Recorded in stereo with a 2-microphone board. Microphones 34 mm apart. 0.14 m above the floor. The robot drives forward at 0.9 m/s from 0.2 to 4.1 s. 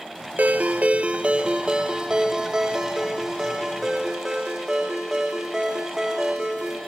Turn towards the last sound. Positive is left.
turn(degrees=-15)  # may be behind; listen again after turning